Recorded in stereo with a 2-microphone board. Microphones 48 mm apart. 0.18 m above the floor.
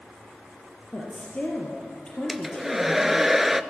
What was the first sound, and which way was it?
A woman speaking, 20° left (ahead or behind).